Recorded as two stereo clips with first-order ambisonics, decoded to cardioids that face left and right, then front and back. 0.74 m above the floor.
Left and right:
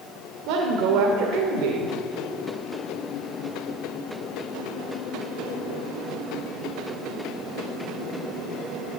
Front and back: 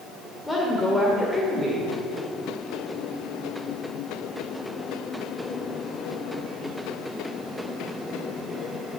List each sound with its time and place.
0.5 s a woman speaking: 80° right, 1.9 m